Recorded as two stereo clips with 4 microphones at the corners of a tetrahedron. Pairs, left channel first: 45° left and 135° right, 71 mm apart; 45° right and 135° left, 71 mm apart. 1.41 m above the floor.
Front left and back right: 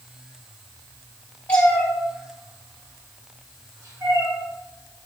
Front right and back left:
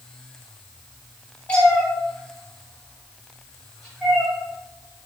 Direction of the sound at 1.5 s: 5° left.